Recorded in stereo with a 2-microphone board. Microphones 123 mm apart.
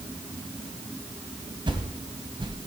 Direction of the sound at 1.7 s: 40° right (ahead or behind).